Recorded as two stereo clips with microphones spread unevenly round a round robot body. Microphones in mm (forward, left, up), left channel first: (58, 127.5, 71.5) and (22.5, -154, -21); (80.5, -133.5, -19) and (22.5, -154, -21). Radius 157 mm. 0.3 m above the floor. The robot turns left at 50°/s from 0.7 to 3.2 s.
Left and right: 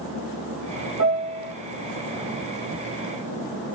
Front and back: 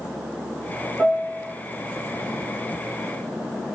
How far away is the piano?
About 4 m.